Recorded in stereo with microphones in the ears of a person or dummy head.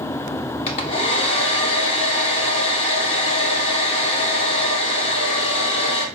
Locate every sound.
0.7 s a hair dryer: 35° left (ahead or behind), 1.0 m